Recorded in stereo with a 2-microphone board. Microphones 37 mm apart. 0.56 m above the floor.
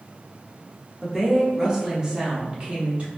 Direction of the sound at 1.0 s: 5° right (ahead or behind).